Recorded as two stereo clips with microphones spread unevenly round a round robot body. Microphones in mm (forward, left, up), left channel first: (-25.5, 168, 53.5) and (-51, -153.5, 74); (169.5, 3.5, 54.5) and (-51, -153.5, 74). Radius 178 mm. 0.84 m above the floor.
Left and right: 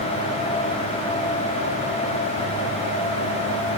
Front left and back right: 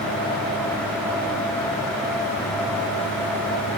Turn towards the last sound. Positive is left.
No sound to turn to.